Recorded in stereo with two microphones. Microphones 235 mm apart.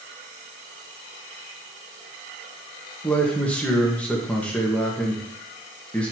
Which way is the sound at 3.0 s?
5° left (ahead or behind).